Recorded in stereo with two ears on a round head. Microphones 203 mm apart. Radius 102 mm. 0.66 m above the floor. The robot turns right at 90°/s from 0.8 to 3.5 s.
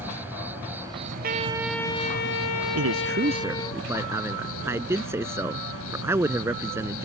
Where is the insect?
170° right; by 7.1 s 70° left.